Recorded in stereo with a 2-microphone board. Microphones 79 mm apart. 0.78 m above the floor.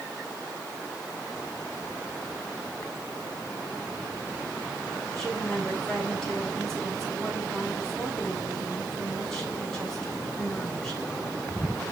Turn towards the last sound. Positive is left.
turn(degrees=5)  # may be behind; listen again after turning